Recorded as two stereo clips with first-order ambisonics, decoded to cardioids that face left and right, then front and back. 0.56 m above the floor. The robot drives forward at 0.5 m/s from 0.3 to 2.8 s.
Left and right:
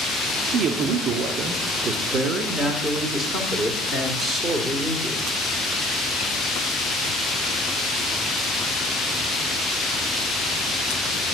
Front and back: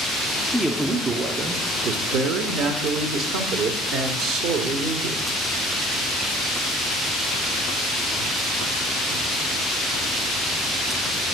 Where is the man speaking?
90° right, 0.9 m; by 5.2 s 155° right, 1.5 m.